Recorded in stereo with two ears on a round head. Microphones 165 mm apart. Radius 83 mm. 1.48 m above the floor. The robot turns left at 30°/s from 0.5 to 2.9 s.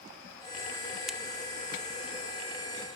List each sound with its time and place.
1.1 s a crack: 5° right (ahead or behind), 1.4 m; by 1.2 s centre (ahead or behind), 1.4 m